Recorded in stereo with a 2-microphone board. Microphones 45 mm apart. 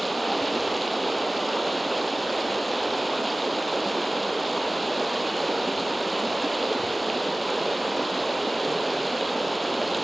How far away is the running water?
About 0.9 m.